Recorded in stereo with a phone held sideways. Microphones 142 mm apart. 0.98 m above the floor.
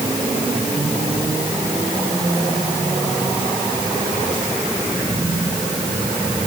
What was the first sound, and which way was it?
Only background noise.